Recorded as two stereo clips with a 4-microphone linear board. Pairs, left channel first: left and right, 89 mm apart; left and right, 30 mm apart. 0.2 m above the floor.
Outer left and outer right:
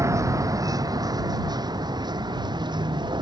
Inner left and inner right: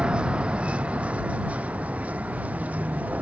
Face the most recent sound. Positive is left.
turn(degrees=-55)  # may be behind; listen again after turning